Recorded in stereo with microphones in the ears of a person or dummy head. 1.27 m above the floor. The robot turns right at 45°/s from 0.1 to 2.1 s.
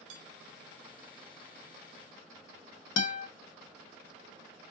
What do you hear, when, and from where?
0.1 s dishes clattering: 70° right (ahead or behind), 1.8 m; by 0.2 s 65° right (ahead or behind), 1.8 m
3.0 s a guitar: 70° left (ahead or behind), 1.4 m